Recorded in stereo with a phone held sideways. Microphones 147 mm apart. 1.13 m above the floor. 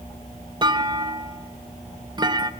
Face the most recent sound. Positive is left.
turn(degrees=-30)  # may be behind; listen again after turning